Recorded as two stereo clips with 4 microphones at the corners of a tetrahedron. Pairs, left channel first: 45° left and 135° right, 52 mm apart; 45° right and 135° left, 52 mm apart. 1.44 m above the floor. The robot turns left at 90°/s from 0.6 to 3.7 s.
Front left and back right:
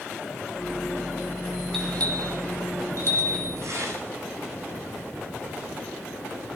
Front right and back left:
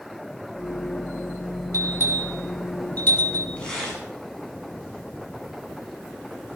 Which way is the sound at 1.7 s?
125° left.